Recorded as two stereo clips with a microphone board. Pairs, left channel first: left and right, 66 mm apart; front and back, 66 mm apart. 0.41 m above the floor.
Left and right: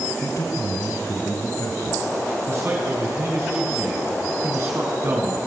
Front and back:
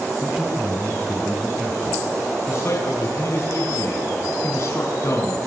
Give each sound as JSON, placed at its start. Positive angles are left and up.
{"t": 0.2, "sound": "a man speaking", "azimuth_deg": 95, "distance_m": 2.5}
{"t": 2.5, "sound": "a man speaking", "azimuth_deg": -45, "distance_m": 4.5}